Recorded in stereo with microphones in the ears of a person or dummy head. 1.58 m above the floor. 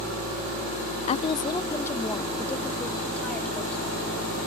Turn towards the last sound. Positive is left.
turn(degrees=10)  # may be behind; listen again after turning